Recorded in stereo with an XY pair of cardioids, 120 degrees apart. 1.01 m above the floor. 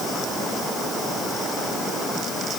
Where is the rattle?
No rattle in this recording.